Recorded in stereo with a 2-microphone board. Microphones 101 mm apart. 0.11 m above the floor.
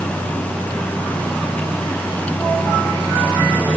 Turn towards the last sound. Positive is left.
No sound to turn to.